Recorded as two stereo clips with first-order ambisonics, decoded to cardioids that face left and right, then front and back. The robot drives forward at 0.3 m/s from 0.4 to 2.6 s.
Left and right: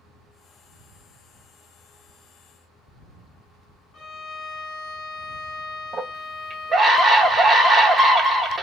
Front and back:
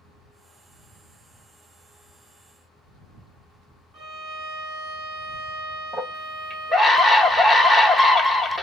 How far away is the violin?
About 0.7 m.